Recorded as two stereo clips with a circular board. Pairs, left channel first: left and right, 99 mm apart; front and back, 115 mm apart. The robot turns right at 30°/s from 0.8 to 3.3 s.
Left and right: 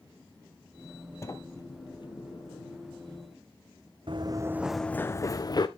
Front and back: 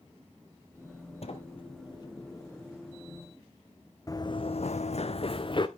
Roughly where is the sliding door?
Ahead left.